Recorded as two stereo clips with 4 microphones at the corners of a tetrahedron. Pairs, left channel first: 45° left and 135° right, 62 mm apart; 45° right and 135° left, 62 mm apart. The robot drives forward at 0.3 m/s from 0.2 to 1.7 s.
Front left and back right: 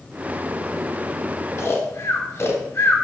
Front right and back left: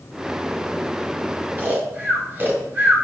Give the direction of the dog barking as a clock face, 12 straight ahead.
I don't hear a dog barking.